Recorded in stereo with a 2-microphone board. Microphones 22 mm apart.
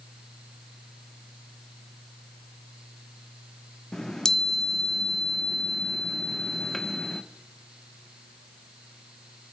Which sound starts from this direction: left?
A chime, at 3.9 s.